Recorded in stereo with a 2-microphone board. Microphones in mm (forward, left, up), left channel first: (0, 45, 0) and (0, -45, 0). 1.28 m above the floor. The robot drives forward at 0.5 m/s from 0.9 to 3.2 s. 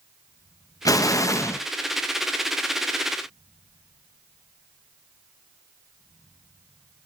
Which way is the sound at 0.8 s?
45° left (ahead or behind).